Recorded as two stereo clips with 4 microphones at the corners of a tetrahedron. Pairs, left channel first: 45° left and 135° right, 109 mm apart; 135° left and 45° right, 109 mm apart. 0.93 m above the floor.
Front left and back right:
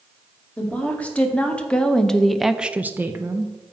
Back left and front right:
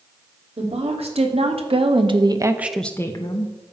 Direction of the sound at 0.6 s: 30° right.